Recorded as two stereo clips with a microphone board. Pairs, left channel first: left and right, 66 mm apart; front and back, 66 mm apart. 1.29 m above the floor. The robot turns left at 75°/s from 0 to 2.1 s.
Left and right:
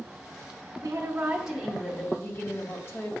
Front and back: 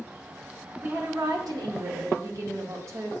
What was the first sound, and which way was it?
A woman speaking, 125° right.